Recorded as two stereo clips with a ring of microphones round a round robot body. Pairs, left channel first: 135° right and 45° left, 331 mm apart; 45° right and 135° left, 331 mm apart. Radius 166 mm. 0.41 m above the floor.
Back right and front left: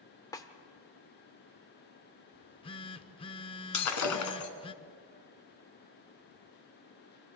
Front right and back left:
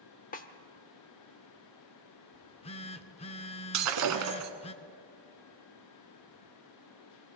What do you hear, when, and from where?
0.3 s a snare drum: 70° right, 1.0 m
2.3 s a phone buzzing: 85° right, 0.5 m
3.7 s breaking glass: straight behind, 1.8 m